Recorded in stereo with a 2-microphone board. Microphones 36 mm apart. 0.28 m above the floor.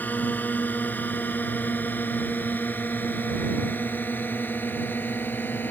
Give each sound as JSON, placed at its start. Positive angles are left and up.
{"t": 0.0, "sound": "a drone", "side_deg": 45}